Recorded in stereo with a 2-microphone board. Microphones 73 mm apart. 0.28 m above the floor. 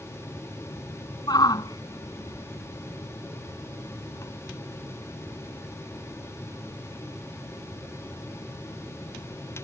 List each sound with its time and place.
1.3 s a shout: 60° left (ahead or behind); by 4.3 s 45° left (ahead or behind)